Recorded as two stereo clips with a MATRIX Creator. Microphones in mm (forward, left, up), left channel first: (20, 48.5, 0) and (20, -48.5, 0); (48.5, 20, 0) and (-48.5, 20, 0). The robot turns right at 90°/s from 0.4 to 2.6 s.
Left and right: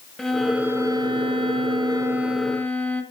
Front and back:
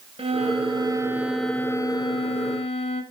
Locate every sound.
0.2 s a violin: straight behind, 1.5 m; by 3.0 s 15° left, 1.5 m